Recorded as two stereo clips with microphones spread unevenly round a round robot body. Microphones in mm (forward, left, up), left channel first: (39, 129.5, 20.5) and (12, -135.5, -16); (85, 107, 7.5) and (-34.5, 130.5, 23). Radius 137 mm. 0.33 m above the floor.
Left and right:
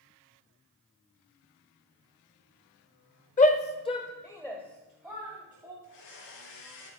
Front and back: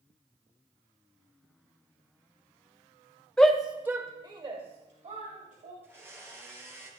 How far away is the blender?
About 8.5 m.